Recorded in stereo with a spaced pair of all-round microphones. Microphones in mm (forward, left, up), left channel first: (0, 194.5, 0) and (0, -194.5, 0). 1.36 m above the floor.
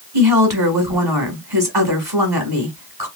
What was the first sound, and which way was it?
A woman speaking, 80° right.